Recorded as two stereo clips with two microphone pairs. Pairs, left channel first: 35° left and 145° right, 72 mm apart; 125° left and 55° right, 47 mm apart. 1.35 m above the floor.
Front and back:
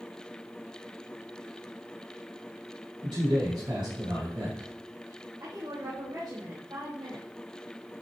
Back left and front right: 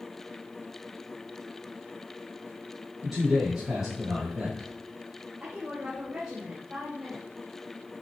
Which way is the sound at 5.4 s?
130° right.